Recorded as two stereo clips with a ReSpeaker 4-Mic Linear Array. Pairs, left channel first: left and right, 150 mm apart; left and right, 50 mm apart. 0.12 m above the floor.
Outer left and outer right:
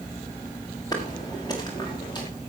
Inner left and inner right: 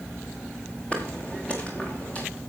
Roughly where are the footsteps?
Left.